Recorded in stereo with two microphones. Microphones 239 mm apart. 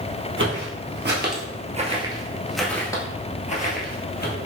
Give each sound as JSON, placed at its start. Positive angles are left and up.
{"t": 0.4, "sound": "footsteps", "side_deg": -60, "distance_m": 1.4}